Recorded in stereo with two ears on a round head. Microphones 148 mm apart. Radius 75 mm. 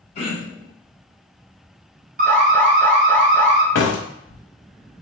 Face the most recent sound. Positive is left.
turn(degrees=80)